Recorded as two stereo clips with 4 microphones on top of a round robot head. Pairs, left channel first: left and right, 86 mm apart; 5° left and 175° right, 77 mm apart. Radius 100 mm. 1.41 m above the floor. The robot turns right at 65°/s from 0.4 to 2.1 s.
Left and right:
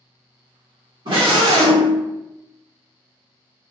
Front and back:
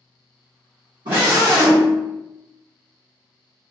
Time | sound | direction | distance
1.1 | a scream | 140° right | 1.0 m